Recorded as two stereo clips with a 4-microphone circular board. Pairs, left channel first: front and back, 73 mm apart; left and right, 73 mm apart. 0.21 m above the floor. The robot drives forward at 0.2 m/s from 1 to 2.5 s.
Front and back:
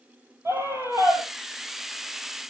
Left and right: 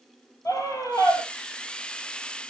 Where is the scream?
130° left, 5.5 m.